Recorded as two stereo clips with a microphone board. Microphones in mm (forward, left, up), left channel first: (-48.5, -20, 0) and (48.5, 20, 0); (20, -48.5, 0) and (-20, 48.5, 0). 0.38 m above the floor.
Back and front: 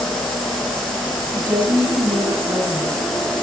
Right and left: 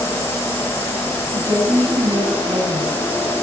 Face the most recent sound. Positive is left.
turn(degrees=65)